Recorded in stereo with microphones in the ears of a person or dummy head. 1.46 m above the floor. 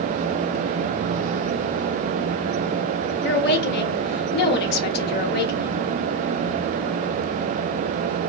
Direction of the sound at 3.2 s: 65° left (ahead or behind).